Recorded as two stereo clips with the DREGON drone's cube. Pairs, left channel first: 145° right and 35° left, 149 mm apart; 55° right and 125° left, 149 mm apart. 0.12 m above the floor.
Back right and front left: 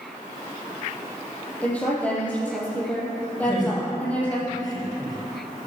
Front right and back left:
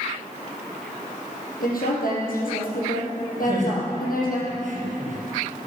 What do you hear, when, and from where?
1.6 s a woman speaking: 65° right, 4.5 m
3.4 s laughter: 155° left, 4 m